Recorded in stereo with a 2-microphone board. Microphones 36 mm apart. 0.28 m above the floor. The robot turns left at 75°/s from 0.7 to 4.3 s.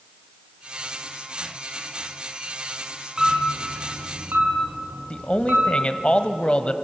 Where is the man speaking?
30° left (ahead or behind), 1.2 m.